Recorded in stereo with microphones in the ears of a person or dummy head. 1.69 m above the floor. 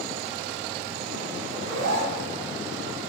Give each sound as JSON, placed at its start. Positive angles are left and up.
{"t": 1.5, "sound": "a zipper", "side_deg": -75, "distance_m": 0.6}